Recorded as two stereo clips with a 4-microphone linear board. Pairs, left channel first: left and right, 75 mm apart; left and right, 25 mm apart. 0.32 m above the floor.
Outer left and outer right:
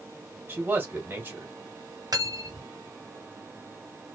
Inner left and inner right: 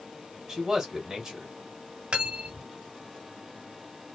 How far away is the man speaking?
About 1.3 m.